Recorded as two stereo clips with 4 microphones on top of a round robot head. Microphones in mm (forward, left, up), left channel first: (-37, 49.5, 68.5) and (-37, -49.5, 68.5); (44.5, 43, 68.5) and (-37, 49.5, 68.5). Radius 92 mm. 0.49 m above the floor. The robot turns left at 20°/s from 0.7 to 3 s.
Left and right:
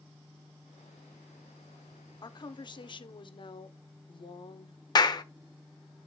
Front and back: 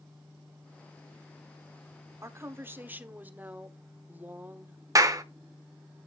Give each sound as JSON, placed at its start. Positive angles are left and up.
{"t": 2.2, "sound": "a woman speaking", "azimuth_deg": 125, "distance_m": 1.2}
{"t": 5.0, "sound": "a clap", "azimuth_deg": 135, "distance_m": 1.1}